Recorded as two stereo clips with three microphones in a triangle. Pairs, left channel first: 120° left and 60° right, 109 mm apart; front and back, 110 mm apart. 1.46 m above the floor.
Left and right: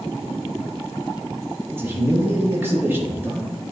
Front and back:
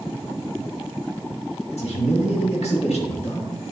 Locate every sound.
1.7 s a man speaking: 10° left, 1.9 m